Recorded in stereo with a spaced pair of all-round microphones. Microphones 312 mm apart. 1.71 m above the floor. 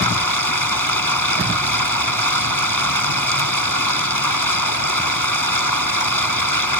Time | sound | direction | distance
0.0 | running water | 85° left | ?